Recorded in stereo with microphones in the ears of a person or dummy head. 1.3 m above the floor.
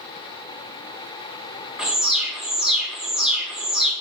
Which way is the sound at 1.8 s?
Centre (ahead or behind).